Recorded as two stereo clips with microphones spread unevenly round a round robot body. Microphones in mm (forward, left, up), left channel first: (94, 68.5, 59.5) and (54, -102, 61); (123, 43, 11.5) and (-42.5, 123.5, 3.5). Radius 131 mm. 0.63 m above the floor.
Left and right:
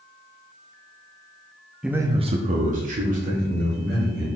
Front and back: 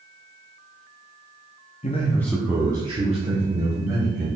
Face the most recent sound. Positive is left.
turn(degrees=-150)